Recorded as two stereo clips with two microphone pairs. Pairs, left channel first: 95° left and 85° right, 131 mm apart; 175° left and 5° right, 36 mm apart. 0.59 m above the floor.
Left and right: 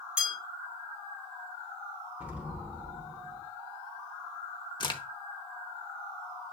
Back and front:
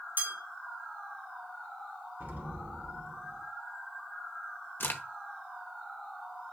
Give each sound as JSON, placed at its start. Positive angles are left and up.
{"t": 0.2, "sound": "a bell", "azimuth_deg": -5, "distance_m": 1.6}
{"t": 2.2, "sound": "an explosion", "azimuth_deg": -5, "distance_m": 0.9}
{"t": 4.8, "sound": "a crack", "azimuth_deg": 155, "distance_m": 0.6}